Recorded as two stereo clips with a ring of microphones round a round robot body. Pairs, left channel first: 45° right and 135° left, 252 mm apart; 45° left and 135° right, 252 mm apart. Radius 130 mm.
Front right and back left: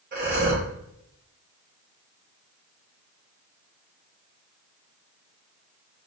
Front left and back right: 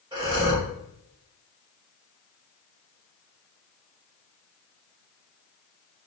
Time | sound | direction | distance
0.1 | breathing | 160° left | 1.3 m